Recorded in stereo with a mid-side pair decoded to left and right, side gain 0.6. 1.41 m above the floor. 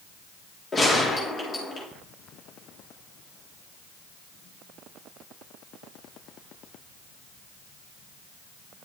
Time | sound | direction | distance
0.7 | a gunshot | 30° left | 3.5 m